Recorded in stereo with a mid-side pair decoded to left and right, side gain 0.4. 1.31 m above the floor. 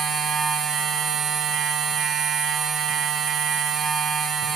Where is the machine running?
60° right, 0.8 m.